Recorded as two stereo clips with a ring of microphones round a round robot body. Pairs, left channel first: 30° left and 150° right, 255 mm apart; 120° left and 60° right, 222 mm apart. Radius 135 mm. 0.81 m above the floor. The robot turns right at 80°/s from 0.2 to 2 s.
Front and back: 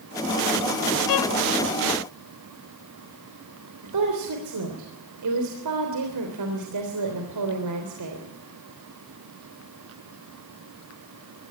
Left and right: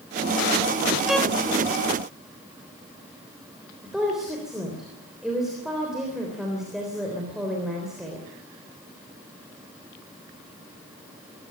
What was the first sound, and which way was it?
A violin, 25° left.